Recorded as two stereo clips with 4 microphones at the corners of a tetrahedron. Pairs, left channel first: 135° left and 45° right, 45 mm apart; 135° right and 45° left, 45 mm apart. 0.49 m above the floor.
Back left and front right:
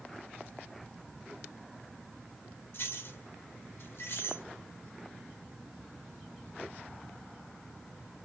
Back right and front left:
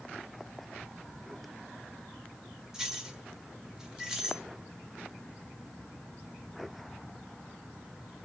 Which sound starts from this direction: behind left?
Keys jangling, at 2.7 s.